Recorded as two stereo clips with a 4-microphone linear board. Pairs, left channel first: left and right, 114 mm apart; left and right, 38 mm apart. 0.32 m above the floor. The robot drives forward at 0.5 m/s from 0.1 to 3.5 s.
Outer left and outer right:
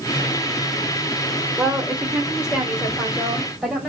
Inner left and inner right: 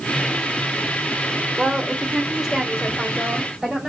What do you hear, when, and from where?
1.6 s a woman speaking: 5° right (ahead or behind), 0.9 m